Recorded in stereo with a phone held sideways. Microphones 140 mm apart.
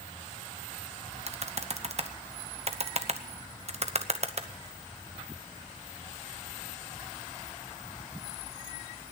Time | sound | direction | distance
1.3 | typing on a keyboard | 50° right (ahead or behind) | 0.9 m